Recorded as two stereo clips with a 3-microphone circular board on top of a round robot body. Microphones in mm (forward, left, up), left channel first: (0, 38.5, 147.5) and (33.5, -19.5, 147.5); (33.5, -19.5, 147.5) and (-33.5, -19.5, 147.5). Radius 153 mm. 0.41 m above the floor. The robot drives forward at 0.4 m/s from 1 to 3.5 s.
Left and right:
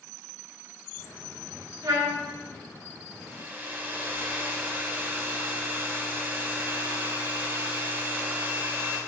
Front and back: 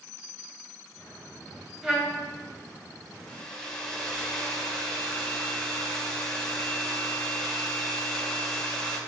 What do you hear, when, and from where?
1.8 s a trumpet: 100° right, 0.7 m; by 2.2 s 110° right, 0.7 m
3.3 s a hair dryer: 55° right, 1.1 m; by 9.0 s 65° right, 1.1 m